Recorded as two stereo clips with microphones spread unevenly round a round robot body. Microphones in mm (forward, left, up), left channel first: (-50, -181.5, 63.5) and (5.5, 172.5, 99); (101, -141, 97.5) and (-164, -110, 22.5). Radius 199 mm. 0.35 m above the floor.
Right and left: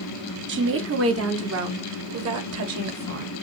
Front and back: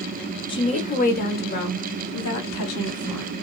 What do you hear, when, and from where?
0.5 s a woman speaking: 80° left, 1.2 m; by 3.3 s 35° left, 2 m